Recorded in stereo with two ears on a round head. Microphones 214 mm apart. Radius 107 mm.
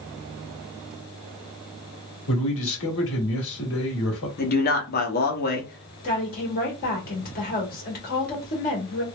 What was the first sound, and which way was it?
A man speaking, 55° left (ahead or behind).